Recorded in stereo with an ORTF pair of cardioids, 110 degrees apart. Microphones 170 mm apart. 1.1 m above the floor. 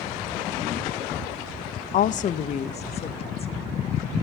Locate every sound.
1.9 s a woman speaking: 50° left, 0.5 m; by 4.2 s 35° left, 1.9 m